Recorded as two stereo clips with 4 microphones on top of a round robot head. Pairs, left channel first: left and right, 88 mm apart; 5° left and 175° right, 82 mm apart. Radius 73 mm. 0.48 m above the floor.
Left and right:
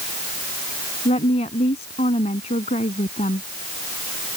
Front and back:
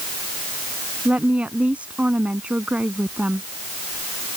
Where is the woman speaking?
110° left.